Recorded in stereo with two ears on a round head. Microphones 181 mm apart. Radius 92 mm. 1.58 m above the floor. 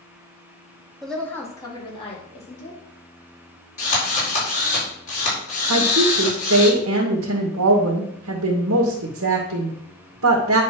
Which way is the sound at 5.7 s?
80° right.